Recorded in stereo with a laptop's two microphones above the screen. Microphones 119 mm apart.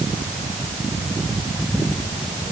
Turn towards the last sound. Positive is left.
No sound to turn to.